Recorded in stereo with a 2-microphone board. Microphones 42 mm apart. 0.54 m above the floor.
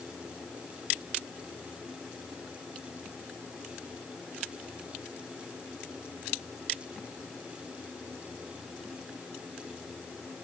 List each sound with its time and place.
Only background noise.